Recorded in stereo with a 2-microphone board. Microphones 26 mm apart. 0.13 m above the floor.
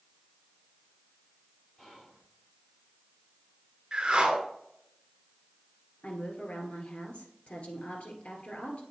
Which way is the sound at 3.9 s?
40° right (ahead or behind).